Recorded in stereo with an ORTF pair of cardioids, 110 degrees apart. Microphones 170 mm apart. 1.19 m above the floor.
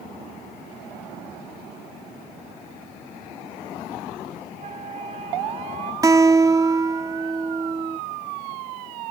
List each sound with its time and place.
4.5 s a flute: 40° right
6.0 s a guitar: 20° right